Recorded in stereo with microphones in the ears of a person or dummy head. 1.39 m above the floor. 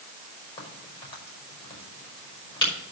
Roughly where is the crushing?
No crushing in this recording.